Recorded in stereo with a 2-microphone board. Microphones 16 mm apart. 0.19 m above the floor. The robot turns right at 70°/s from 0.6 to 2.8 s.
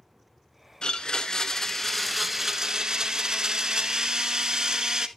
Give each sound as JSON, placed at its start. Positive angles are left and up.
{"t": 0.8, "sound": "a blender", "azimuth_deg": 90, "distance_m": 1.0}